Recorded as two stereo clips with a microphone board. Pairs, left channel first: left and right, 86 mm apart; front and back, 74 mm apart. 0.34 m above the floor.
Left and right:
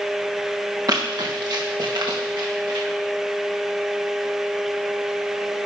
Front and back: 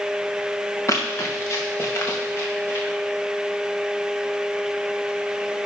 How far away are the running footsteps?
About 3 m.